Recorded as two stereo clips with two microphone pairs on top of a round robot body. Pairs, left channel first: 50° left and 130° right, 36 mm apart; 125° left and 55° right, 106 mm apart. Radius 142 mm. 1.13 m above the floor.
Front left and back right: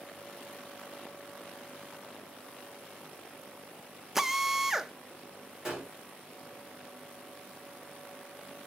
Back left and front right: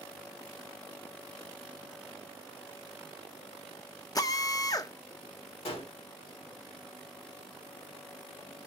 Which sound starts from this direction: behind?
A drill, at 4.2 s.